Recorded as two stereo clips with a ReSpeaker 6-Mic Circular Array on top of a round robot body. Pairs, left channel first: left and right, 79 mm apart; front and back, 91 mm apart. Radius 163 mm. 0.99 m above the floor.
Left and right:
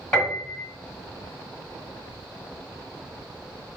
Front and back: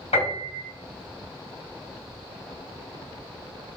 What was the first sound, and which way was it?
A piano, 10° left.